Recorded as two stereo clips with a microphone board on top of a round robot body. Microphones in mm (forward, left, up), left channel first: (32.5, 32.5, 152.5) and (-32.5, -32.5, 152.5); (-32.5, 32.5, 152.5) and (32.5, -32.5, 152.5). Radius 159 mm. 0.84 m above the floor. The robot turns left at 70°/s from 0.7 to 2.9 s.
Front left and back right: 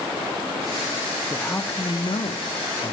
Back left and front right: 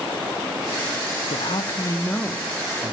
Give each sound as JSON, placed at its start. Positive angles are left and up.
{"t": 1.3, "sound": "a man speaking", "azimuth_deg": 125, "distance_m": 0.7}